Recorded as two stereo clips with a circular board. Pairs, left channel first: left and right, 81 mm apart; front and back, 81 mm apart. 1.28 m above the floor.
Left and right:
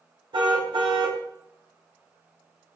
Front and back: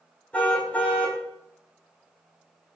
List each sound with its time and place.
0.3 s a car horn: 75° right, 4 m